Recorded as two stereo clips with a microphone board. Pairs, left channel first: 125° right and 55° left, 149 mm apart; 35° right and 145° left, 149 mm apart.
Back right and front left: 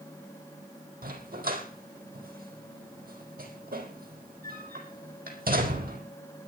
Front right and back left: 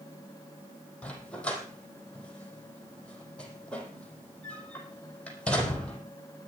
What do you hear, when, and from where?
1.0 s a dog barking: 50° left, 4 m